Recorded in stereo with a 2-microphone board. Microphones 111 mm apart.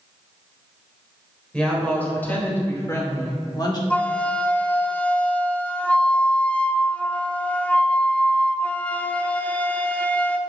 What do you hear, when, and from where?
1.5 s a woman speaking: 10° left (ahead or behind), 3.5 m; by 3.8 s 40° left (ahead or behind), 1.9 m
3.9 s a flute: 10° left (ahead or behind), 0.5 m